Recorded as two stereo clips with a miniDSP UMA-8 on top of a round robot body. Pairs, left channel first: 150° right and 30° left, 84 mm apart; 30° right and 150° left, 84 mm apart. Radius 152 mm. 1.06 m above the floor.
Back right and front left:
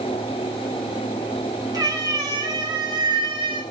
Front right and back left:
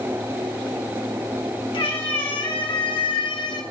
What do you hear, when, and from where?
1.7 s a cat meowing: 15° right, 2.5 m; by 3.6 s 10° left, 0.9 m